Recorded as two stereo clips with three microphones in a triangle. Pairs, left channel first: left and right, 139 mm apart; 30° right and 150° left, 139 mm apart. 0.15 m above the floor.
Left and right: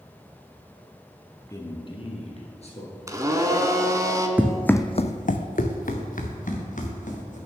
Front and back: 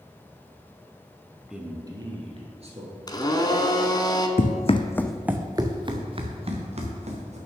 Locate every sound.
1.5 s a man speaking: 70° left, 1.1 m; by 3.0 s 120° left, 2.5 m
3.1 s a blender: 50° right, 0.8 m
4.4 s running footsteps: 10° right, 0.7 m; by 7.4 s 110° left, 2.5 m